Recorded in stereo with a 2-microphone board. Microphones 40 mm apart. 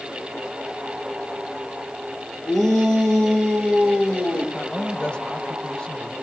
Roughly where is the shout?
Centre.